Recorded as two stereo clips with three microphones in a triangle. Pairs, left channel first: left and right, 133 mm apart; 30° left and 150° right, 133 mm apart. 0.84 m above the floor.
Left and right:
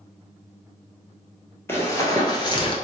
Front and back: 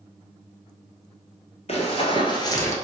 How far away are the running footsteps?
About 1.2 m.